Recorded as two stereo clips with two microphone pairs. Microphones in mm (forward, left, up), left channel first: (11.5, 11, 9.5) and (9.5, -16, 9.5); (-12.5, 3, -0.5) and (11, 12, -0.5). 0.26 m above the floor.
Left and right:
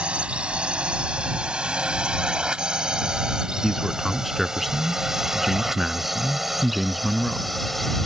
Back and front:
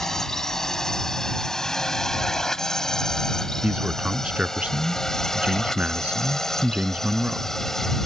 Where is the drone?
95° right; by 8.1 s 160° left.